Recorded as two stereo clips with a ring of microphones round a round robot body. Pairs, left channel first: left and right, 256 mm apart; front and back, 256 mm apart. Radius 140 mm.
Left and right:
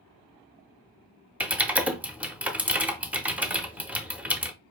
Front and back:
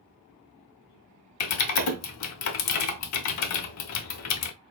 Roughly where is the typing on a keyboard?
Ahead.